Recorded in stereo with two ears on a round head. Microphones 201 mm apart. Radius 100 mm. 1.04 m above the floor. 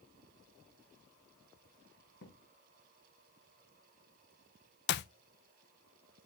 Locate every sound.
2.2 s a thud: 55° left (ahead or behind), 4 m
4.9 s a clap: 50° left (ahead or behind), 0.5 m